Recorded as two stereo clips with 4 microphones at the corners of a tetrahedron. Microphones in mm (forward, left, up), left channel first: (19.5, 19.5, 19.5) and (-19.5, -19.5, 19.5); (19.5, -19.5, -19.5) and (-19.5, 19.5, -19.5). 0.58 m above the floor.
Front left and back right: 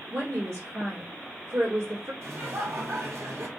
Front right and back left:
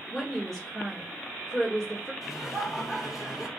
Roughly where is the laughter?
Behind right.